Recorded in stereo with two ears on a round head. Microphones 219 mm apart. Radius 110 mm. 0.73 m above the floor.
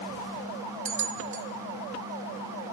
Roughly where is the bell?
Right.